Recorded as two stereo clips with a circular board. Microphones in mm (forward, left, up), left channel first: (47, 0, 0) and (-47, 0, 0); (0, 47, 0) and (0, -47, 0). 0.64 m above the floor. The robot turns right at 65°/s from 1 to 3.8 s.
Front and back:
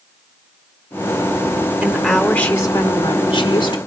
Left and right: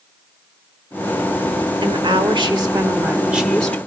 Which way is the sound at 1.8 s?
110° right.